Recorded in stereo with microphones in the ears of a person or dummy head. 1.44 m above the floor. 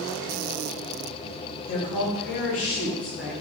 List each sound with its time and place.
1.7 s a woman speaking: 80° left, 1.3 m; by 3.3 s 5° right (ahead or behind), 0.9 m